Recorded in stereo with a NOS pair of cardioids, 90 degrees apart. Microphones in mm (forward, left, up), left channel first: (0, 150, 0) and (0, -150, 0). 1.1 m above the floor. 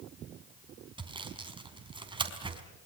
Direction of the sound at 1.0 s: 15° right.